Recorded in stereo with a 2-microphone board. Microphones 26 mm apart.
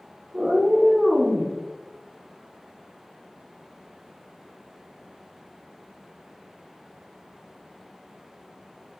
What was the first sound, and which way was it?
A cat meowing, 40° right (ahead or behind).